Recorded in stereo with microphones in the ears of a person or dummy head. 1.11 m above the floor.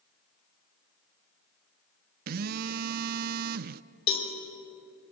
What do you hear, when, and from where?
2.3 s a phone buzzing: 45° right (ahead or behind), 0.6 m
4.1 s a cowbell: 35° left (ahead or behind), 4 m